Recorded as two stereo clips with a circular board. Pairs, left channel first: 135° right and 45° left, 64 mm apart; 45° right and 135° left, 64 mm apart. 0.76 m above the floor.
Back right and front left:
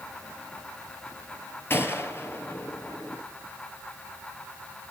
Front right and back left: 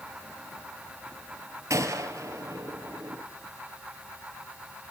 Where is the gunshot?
175° left, 3.5 m.